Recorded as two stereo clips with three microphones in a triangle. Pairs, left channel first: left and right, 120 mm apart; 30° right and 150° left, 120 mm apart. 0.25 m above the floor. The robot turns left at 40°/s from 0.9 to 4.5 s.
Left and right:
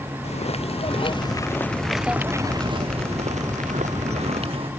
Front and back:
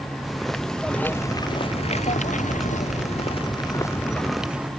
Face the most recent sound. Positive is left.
turn(degrees=-130)